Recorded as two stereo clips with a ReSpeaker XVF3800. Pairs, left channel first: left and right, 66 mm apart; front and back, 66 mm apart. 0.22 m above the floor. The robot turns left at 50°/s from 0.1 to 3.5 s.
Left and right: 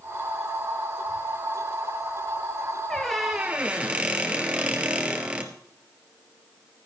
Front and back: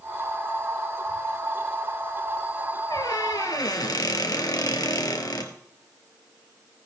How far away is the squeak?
About 1.7 m.